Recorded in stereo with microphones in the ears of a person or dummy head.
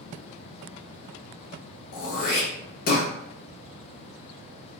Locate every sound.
1.9 s throat clearing: 50° left (ahead or behind), 0.9 m